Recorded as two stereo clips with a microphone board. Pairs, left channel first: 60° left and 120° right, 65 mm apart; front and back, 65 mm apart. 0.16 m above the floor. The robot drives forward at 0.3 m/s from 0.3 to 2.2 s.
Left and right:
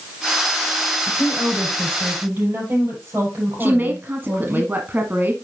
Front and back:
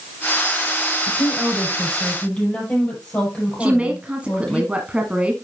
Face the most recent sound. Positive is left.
turn(degrees=-130)